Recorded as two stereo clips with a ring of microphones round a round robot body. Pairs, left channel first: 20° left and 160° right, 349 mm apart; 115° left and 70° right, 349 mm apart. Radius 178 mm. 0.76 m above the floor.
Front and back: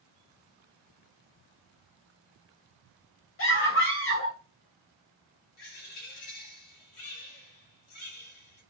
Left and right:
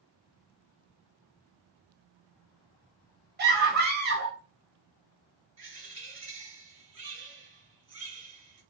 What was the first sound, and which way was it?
A scream, 15° right.